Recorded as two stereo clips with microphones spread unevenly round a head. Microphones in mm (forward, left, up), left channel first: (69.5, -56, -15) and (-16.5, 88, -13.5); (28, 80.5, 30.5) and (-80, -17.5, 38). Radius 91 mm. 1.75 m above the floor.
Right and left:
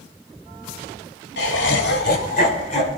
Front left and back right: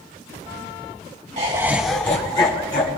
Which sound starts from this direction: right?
Laughter, at 1.4 s.